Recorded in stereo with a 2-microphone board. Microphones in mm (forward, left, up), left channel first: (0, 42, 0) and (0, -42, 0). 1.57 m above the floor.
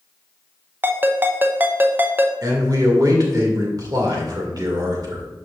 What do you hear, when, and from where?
0.8 s a ringtone: 25° right (ahead or behind), 0.7 m
2.4 s a man speaking: 50° right (ahead or behind), 2 m